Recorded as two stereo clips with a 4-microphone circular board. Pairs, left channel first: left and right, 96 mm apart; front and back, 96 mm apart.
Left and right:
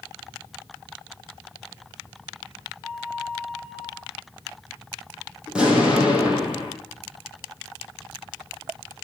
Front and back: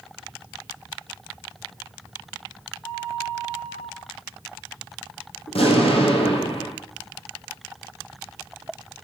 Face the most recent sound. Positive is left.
turn(degrees=-10)